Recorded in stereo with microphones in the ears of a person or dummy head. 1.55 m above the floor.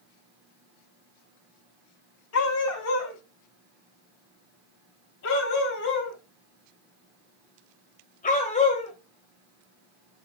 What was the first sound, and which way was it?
A dog barking, 70° left (ahead or behind).